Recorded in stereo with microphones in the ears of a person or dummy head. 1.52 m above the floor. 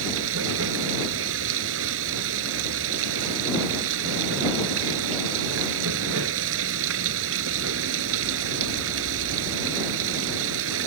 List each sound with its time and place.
0.0 s running water: 80° right